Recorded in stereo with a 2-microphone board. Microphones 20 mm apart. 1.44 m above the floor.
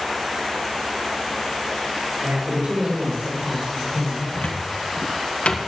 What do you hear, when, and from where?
2.2 s a man speaking: 85° right, 6.5 m; by 4.2 s 70° right (ahead or behind), 7 m
4.3 s a cupboard door: 80° left, 1.3 m